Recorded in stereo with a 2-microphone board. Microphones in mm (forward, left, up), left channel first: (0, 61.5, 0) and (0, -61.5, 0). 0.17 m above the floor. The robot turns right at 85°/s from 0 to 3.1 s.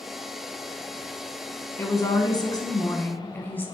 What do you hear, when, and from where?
1.8 s a woman speaking: 40° left, 1.2 m; by 3.7 s 150° left, 1.2 m